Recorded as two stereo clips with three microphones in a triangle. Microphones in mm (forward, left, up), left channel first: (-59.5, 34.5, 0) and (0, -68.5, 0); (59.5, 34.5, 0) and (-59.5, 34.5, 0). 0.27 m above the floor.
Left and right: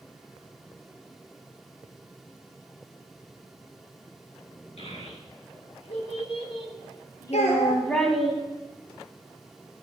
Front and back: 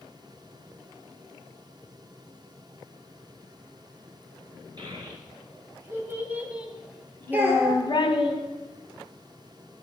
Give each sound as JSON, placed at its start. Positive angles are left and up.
{"t": 4.8, "sound": "a child speaking", "azimuth_deg": 130, "distance_m": 3.0}
{"t": 7.3, "sound": "a child speaking", "azimuth_deg": 105, "distance_m": 3.0}